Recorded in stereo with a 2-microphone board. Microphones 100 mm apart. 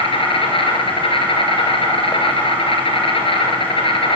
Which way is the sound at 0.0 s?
65° left (ahead or behind).